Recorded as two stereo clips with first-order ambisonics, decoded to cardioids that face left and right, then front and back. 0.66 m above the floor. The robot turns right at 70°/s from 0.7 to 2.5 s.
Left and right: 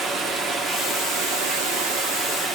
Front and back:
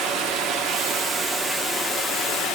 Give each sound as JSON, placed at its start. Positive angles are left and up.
{"t": 0.0, "sound": "running water", "azimuth_deg": -150, "distance_m": 1.3}